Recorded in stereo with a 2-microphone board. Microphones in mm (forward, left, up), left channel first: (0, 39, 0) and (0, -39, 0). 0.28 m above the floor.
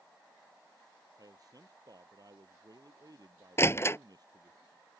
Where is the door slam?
30° left (ahead or behind).